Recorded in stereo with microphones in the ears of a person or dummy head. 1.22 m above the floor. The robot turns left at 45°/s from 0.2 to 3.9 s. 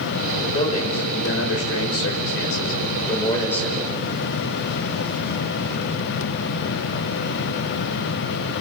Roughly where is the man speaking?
Behind left.